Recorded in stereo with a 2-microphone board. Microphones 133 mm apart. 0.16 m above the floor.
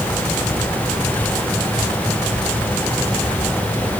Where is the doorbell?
No doorbell in this recording.